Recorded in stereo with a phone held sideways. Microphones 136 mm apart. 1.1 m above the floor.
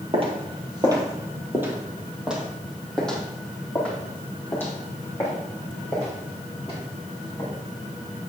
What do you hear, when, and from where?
0.1 s footsteps: 40° right (ahead or behind), 2.0 m; by 7.5 s 25° left (ahead or behind), 6 m